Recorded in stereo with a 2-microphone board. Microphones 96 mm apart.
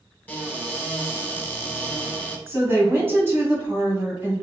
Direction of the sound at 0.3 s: 20° left (ahead or behind).